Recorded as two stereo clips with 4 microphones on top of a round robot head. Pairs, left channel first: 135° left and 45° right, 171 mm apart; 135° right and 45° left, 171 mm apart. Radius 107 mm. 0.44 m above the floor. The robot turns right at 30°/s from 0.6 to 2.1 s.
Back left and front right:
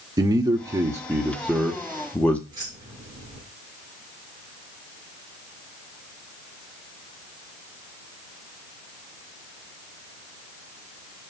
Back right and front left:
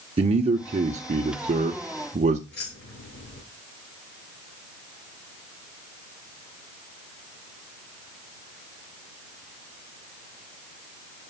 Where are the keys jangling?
110° right, 5.5 m.